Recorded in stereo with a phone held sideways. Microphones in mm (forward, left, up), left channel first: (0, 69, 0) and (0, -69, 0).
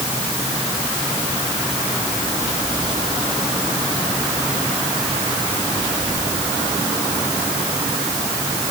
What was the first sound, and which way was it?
Only background noise.